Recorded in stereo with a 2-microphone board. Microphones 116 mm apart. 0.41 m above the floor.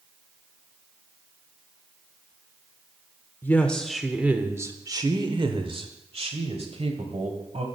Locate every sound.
3.4 s a woman speaking: 15° left (ahead or behind), 0.8 m; by 7.7 s 65° right (ahead or behind), 2.0 m